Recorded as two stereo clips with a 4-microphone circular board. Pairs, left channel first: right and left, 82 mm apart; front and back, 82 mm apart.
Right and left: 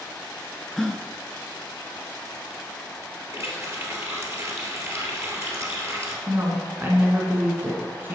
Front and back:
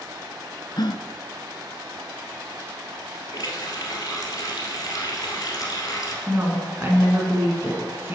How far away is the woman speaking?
About 1.8 m.